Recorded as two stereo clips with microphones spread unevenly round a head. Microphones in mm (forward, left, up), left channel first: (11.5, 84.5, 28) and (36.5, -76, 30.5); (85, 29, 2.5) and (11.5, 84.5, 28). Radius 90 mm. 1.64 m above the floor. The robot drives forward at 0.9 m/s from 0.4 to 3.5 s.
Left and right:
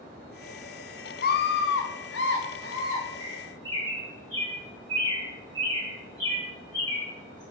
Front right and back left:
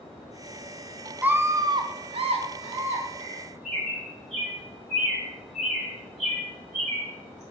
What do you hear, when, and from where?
1.2 s a scream: 65° left, 0.9 m; by 3.0 s 150° left, 1.5 m
3.2 s a bird: 165° left, 4 m